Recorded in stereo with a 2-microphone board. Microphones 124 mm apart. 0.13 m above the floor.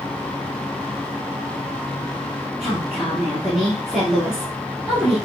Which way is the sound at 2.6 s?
5° right (ahead or behind).